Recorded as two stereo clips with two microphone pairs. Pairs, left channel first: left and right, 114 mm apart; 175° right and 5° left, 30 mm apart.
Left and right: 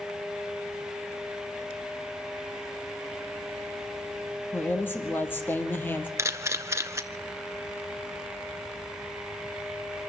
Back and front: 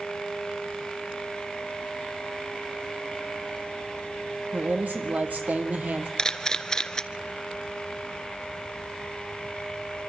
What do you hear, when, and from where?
4.5 s a woman speaking: 20° left, 3.5 m
6.2 s a camera shutter: 130° right, 1.1 m